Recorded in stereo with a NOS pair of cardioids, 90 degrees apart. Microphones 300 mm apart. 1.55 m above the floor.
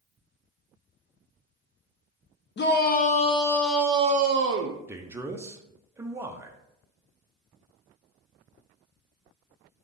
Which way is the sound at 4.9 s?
10° right.